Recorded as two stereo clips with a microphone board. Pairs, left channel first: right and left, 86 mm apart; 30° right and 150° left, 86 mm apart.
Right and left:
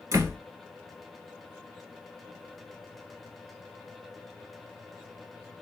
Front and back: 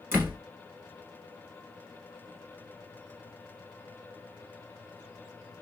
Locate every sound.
0.1 s a door slam: 105° left, 1.4 m